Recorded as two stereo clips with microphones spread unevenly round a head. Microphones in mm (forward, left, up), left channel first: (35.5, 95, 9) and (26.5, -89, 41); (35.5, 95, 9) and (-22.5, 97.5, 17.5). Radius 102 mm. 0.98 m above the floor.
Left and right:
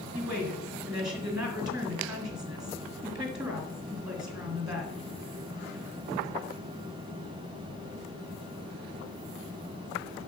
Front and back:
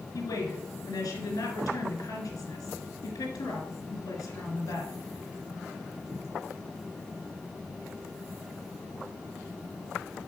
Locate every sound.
0.1 s a woman speaking: 20° right, 2 m